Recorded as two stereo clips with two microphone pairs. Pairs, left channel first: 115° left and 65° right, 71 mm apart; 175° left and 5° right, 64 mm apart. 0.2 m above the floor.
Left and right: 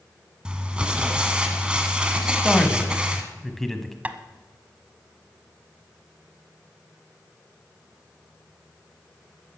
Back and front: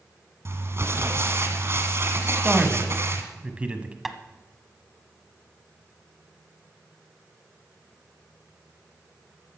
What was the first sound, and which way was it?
Crumpling, 5° left.